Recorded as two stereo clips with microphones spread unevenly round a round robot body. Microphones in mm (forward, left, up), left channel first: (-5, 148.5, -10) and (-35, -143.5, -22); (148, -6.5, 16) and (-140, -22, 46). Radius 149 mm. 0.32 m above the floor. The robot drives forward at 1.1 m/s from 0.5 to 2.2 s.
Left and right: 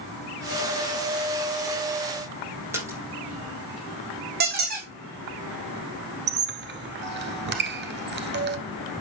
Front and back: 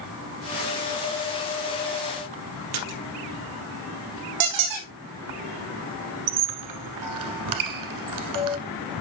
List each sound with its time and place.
2.7 s a splash: straight behind, 3.5 m
4.4 s a squeak: 155° right, 3 m
6.3 s a squeak: 150° right, 1.1 m